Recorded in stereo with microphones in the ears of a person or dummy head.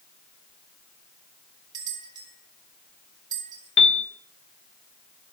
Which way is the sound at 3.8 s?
35° left (ahead or behind).